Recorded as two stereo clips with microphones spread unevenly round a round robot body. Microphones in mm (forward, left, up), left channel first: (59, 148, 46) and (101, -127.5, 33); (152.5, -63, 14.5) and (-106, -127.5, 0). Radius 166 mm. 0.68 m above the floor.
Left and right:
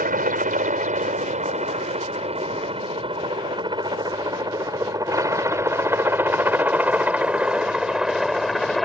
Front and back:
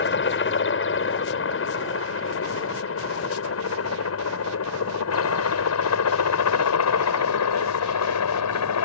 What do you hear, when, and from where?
0.0 s a helicopter: 25° right; by 8.9 s 10° left